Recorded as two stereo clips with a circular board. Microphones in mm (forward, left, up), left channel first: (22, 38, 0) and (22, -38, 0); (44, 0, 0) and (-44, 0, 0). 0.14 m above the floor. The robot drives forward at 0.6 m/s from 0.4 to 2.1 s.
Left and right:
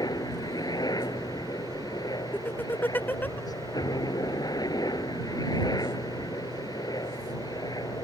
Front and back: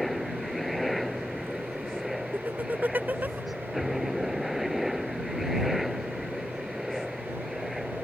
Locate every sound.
0.0 s a helicopter: 85° left; by 8.0 s 90° left
2.3 s laughter: 130° left